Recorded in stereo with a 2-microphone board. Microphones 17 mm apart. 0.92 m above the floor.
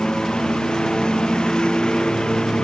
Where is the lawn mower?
55° left (ahead or behind); by 2.6 s 60° left (ahead or behind).